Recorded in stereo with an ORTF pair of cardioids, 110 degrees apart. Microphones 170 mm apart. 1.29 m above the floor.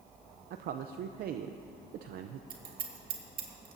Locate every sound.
0.5 s a man speaking: 65° right, 0.6 m
2.5 s scissors: 60° right, 2.0 m